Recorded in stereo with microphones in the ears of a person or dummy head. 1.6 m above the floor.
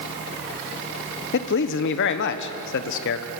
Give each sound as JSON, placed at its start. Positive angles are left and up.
{"t": 1.3, "sound": "a man speaking", "side_deg": 65, "distance_m": 1.3}